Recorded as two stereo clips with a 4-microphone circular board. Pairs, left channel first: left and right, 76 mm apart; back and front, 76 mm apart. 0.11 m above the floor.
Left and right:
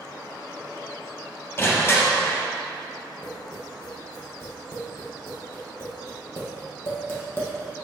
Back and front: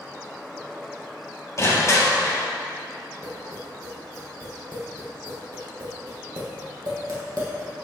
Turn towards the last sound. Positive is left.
turn(degrees=35)